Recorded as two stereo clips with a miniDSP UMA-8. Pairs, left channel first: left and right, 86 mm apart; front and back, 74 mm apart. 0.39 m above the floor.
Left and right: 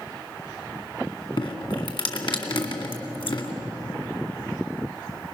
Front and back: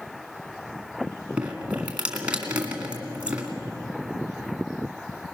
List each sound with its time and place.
1.4 s dripping: 110° left, 2 m